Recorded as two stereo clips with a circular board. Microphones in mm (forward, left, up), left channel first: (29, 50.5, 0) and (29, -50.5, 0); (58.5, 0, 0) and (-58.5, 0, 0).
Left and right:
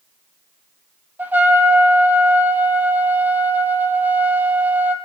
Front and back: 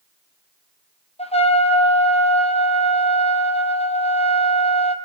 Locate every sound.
1.2 s a trumpet: 20° right, 1.9 m